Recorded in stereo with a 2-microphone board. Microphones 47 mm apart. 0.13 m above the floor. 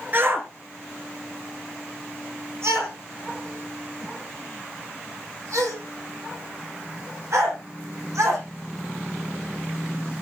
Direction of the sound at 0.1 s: 45° right (ahead or behind).